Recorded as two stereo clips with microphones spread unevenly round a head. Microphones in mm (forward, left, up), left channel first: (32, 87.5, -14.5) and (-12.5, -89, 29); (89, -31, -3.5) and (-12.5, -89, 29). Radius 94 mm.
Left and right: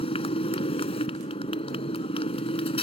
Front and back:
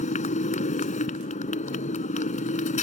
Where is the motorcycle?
15° left.